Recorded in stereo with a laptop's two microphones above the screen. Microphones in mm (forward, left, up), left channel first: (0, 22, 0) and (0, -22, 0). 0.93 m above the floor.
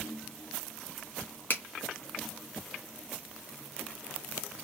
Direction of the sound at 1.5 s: 50° left (ahead or behind).